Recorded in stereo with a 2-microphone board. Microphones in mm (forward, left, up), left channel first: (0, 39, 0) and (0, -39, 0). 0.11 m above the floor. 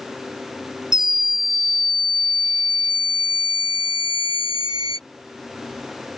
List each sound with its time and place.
0.9 s a scream: 70° right (ahead or behind); by 5.0 s 55° right (ahead or behind)